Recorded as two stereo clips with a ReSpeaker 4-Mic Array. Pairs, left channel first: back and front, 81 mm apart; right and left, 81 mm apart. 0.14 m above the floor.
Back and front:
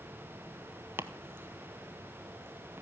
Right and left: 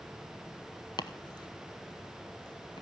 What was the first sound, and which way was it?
Chopping, 60° right.